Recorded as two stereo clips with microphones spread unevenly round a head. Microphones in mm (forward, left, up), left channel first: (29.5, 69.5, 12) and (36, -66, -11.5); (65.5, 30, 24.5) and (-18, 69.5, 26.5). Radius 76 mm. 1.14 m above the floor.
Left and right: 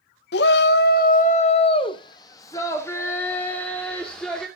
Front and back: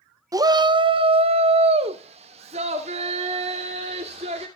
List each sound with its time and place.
0.3 s a shout: 100° left, 0.7 m; by 4.5 s straight behind, 2.5 m